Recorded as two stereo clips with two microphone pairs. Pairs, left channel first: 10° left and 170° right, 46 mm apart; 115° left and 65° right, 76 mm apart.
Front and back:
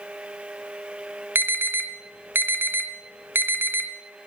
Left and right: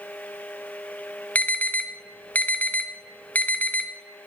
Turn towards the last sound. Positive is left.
turn(degrees=-175)